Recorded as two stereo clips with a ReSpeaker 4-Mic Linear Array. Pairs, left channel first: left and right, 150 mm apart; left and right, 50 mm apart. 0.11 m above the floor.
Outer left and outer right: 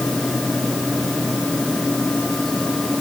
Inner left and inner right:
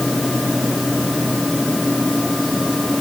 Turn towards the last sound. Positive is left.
No sound to turn to.